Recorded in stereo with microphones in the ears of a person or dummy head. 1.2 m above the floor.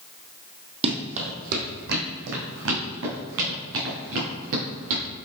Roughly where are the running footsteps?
Right.